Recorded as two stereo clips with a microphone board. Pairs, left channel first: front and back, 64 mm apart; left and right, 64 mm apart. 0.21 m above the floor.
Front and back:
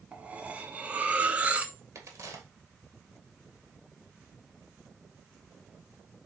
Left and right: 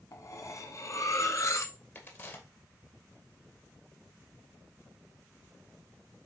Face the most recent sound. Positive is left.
turn(degrees=145)